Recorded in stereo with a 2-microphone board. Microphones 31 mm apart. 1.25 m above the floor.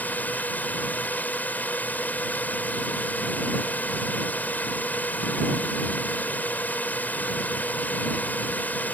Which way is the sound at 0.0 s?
75° left (ahead or behind).